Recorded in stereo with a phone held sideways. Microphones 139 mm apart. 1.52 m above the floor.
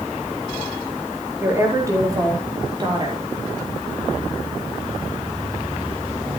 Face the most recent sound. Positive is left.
turn(degrees=-35)  # may be behind; listen again after turning